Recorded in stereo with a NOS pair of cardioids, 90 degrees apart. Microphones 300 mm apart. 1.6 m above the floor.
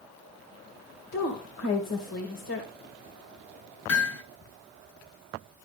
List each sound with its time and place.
1.1 s a woman speaking: 55° left, 2.5 m
3.9 s hammering: 65° left, 3.5 m